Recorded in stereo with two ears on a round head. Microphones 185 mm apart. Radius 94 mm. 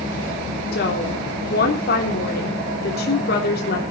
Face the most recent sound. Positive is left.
turn(degrees=50)  # may be behind; listen again after turning